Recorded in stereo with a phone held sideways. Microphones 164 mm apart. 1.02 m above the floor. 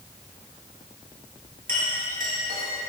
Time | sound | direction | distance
1.7 | a clink | 75° right (ahead or behind) | 5 m